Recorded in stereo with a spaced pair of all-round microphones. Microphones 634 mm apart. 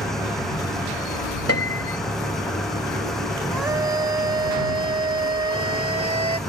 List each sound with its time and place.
0.0 s an engine running: centre (ahead or behind)
1.5 s a piano: 20° left (ahead or behind)
3.5 s a scream: 85° right